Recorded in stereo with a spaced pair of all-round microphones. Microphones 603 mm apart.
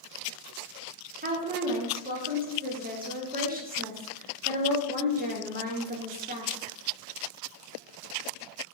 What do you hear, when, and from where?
1.2 s a woman speaking: 15° right (ahead or behind), 0.7 m